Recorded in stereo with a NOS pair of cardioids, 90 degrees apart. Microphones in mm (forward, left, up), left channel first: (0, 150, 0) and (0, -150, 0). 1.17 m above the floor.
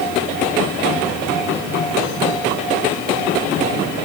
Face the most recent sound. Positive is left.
No sound to turn to.